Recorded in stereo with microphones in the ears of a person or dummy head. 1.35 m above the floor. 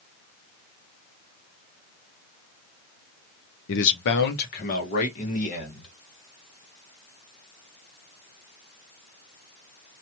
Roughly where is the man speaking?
Left.